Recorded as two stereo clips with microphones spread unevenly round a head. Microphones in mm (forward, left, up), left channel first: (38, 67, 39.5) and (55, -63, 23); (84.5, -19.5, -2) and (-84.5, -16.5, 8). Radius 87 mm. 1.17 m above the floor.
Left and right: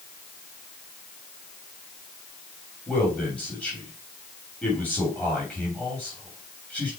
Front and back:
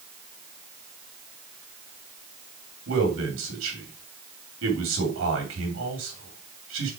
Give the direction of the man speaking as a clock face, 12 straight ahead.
6 o'clock.